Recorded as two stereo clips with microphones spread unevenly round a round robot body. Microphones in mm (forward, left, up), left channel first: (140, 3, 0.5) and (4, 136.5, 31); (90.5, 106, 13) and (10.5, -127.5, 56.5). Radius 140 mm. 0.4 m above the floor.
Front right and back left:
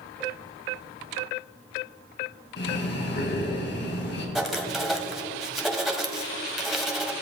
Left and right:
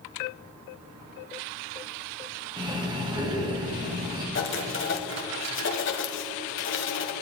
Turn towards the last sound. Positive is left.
turn(degrees=45)